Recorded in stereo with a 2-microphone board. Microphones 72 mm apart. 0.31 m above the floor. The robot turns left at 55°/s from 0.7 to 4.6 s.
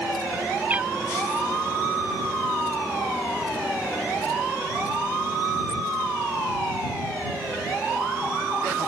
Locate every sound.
0.7 s a cat meowing: 25° right (ahead or behind); by 0.9 s 10° right (ahead or behind)